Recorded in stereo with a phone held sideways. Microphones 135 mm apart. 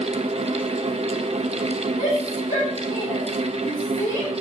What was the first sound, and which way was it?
A fan, 50° right (ahead or behind).